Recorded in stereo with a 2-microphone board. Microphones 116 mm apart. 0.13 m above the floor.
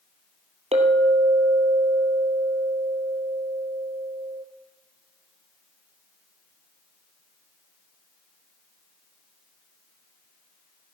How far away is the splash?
I don't hear a splash.